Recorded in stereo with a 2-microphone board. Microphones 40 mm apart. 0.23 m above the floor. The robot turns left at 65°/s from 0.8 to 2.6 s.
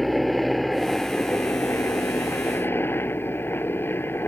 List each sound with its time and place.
0.0 s a helicopter: straight behind; by 4.3 s 65° left